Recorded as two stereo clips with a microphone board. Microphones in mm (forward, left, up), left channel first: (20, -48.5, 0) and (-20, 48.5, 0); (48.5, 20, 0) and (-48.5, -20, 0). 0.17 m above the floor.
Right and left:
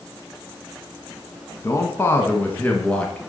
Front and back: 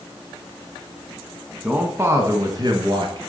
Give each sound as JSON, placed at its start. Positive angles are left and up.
{"t": 1.6, "sound": "a man speaking", "azimuth_deg": -90, "distance_m": 1.6}